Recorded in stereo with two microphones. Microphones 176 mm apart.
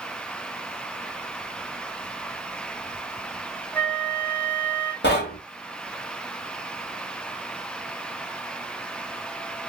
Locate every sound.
3.7 s a flute: 10° left (ahead or behind), 0.7 m
5.0 s knocking: 75° left (ahead or behind), 1.1 m